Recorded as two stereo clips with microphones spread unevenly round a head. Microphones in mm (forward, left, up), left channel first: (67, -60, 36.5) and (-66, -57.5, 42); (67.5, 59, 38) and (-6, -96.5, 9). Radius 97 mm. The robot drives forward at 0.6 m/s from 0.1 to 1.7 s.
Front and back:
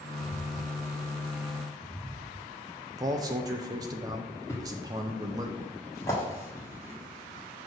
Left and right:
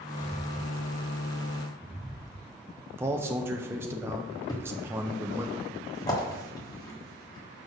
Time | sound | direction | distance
0.2 | footsteps | 25° left | 1.8 m
3.0 | a man speaking | 160° left | 0.5 m
4.5 | a thud | 60° left | 1.2 m